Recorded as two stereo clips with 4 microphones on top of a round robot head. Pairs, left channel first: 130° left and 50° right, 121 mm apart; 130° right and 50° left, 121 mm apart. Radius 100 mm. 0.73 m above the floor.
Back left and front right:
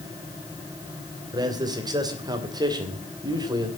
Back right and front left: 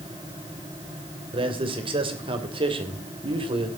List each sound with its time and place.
1.3 s a man speaking: 5° left, 3 m